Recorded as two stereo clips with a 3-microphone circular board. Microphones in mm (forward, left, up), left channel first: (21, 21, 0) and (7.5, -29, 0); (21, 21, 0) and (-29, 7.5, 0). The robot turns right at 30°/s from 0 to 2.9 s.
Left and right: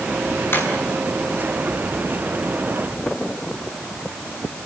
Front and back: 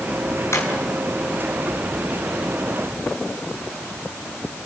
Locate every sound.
0.5 s a drawer: 35° left, 6 m; by 0.7 s 40° left, 6 m